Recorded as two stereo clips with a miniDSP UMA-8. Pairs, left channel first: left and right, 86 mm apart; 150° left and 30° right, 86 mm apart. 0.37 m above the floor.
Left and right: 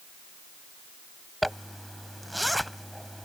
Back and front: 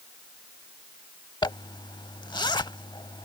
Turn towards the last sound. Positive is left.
turn(degrees=180)